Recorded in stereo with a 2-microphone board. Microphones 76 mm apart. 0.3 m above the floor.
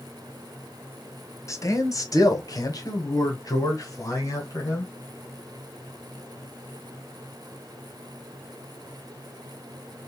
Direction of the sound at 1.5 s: 40° left (ahead or behind).